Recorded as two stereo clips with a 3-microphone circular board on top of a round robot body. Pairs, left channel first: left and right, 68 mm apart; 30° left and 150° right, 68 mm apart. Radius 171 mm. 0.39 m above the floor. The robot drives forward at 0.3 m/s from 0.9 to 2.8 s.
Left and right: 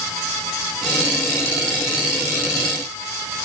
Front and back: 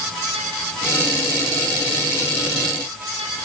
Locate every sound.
Only background noise.